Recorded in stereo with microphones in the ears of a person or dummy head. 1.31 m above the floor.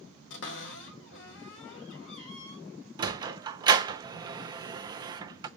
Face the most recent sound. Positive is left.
turn(degrees=-25)  # may be behind; listen again after turning